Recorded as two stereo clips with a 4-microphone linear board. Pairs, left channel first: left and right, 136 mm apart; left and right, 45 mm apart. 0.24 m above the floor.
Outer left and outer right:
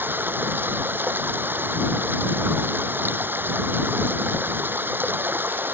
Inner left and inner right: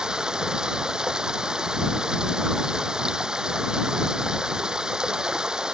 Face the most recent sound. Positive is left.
turn(degrees=-15)  # may be behind; listen again after turning